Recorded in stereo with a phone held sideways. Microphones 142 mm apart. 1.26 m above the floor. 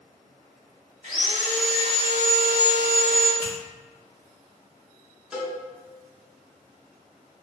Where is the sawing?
60° right (ahead or behind), 0.9 m.